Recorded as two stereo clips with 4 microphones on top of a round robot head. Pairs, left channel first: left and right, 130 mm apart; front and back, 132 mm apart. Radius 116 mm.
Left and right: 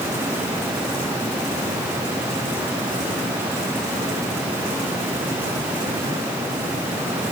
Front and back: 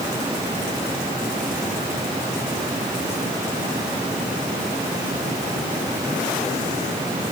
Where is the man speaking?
No man speaking in this recording.